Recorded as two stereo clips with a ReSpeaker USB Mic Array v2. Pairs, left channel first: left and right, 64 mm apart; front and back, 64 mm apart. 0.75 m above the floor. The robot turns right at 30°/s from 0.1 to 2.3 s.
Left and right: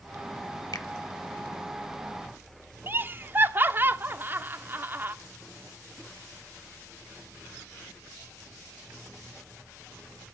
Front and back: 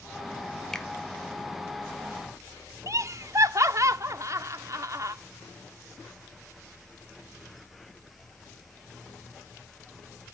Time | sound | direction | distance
0.7 | a finger snap | 85° left | 1.5 m
2.9 | laughter | 145° right | 1.3 m